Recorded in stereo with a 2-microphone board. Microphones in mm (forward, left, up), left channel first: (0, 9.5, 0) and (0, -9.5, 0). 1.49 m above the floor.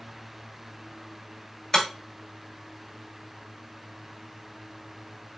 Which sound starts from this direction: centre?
Breaking glass, at 1.7 s.